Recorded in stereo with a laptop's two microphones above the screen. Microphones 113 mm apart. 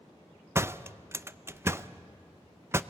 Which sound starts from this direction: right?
A door slam, at 0.6 s.